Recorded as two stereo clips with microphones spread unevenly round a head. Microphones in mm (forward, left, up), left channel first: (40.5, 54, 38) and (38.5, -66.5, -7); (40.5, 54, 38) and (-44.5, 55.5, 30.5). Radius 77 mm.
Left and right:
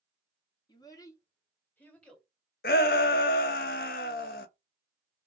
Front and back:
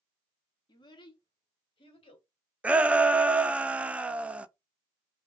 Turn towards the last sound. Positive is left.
turn(degrees=105)